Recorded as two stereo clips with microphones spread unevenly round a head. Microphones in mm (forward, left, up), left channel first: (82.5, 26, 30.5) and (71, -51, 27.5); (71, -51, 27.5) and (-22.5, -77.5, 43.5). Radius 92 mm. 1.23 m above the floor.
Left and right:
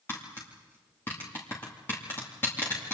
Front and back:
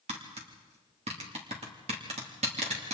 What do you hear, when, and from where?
0.1 s tapping: 155° left, 2.5 m